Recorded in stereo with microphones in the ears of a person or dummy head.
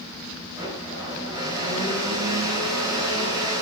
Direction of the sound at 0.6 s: 25° right (ahead or behind).